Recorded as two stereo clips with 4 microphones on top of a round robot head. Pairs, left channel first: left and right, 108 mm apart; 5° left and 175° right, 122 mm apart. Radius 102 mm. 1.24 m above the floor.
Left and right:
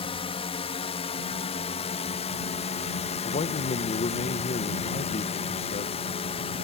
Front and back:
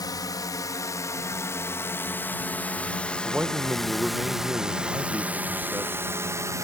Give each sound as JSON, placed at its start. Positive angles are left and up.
{"t": 0.0, "sound": "a drone", "azimuth_deg": 60}
{"t": 3.2, "sound": "a man speaking", "azimuth_deg": 105}